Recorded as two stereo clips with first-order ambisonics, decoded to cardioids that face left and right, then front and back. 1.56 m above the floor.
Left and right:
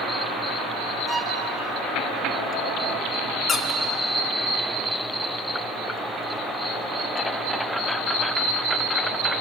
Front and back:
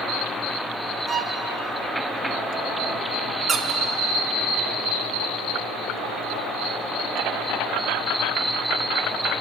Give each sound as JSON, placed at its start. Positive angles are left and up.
{"t": 1.1, "sound": "a violin", "azimuth_deg": -150, "distance_m": 1.3}
{"t": 3.5, "sound": "a squeak", "azimuth_deg": 135, "distance_m": 0.8}